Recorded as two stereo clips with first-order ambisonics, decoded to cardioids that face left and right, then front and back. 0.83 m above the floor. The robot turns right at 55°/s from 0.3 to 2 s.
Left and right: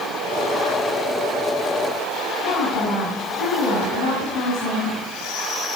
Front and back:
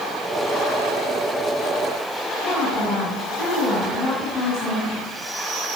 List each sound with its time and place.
2.4 s a woman speaking: 80° left, 6 m